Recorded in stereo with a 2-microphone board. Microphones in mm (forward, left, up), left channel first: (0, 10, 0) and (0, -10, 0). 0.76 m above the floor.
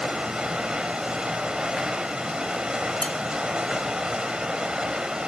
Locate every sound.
0.0 s running water: 55° right (ahead or behind), 1.5 m
3.0 s dishes clattering: 65° left (ahead or behind), 1.1 m